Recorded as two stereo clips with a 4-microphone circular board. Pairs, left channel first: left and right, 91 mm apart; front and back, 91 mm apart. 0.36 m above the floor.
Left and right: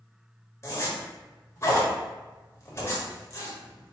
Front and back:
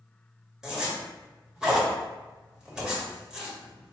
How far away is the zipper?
About 1.3 m.